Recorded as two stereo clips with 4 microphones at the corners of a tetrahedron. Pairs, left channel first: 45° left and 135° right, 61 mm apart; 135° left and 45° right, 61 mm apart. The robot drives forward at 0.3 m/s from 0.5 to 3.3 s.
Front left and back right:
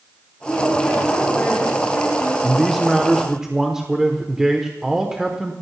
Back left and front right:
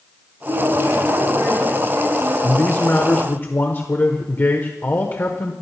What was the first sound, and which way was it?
A woman speaking, 30° right.